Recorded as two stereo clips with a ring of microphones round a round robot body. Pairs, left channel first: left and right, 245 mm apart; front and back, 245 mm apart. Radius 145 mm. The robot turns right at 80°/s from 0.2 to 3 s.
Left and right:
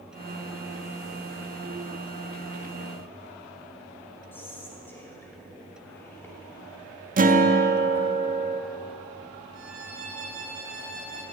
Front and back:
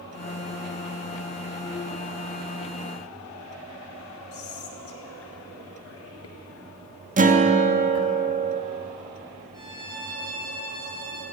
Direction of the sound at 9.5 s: 105° right.